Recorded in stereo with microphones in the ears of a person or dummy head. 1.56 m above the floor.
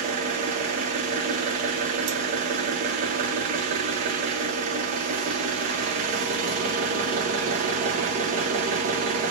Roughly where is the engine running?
Right.